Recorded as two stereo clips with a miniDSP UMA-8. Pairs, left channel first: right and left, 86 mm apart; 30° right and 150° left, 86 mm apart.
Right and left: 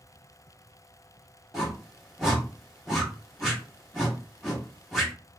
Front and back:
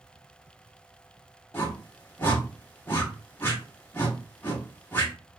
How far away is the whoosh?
About 1.3 m.